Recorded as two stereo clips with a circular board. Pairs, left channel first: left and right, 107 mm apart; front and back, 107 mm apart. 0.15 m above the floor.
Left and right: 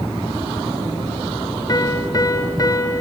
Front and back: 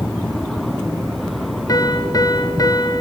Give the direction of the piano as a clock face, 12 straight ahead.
11 o'clock.